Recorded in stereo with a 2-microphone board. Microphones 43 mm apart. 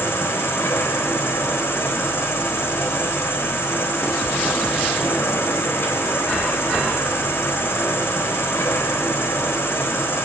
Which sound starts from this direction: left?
An insect, at 0.0 s.